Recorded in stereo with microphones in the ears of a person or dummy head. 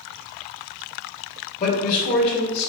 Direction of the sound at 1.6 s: 35° left (ahead or behind).